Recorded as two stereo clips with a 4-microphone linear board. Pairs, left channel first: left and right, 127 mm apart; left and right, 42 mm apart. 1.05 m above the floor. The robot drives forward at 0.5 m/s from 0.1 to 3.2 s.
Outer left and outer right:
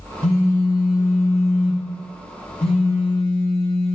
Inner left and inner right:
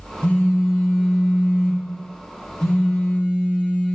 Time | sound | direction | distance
0.2 | a phone buzzing | 80° left | 4 m